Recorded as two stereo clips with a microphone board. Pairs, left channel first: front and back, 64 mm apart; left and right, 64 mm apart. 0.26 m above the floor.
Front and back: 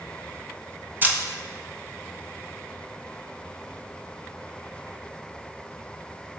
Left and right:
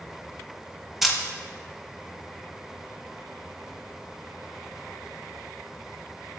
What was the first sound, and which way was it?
A camera shutter, 175° right.